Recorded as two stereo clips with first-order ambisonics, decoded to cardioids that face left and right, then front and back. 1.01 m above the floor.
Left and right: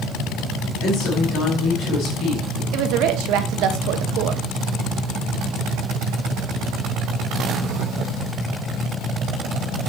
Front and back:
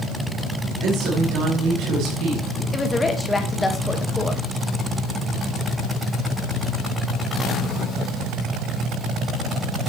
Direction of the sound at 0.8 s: 135° left.